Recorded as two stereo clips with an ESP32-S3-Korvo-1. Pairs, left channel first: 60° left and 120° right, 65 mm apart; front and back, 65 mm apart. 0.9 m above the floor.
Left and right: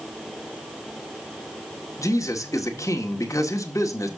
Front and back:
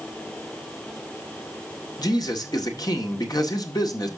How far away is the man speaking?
About 1.9 m.